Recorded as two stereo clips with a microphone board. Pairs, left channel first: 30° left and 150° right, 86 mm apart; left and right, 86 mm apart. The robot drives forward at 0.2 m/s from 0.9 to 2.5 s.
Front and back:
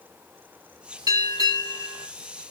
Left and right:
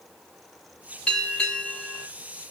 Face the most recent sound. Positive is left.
turn(degrees=170)